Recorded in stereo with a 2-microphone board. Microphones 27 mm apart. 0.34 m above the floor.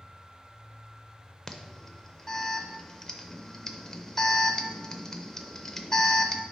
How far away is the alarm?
About 0.5 m.